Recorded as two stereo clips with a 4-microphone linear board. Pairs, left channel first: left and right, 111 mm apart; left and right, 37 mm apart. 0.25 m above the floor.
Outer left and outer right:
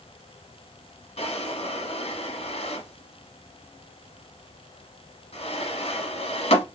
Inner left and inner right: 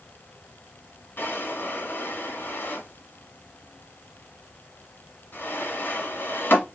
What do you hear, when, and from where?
1.2 s a drawer: 70° left (ahead or behind), 1.2 m